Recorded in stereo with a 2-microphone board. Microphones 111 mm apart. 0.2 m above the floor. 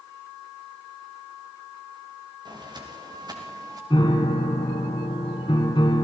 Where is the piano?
45° left (ahead or behind), 2.5 m.